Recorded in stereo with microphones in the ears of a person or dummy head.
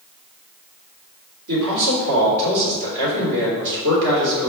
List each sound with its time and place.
1.5 s a man speaking: 70° right (ahead or behind), 3 m